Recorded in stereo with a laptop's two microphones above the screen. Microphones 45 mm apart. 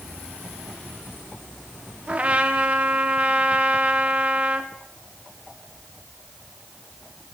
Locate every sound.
2.1 s a trumpet: 30° right (ahead or behind), 1.0 m